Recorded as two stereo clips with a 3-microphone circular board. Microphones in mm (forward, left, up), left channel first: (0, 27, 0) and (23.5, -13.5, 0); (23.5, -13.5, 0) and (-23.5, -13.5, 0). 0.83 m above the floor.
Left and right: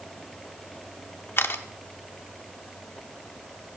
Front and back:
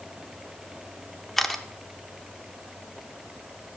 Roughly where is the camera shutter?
Left.